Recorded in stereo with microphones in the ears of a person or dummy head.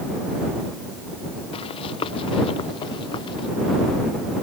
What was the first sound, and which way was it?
Running footsteps, 35° left (ahead or behind).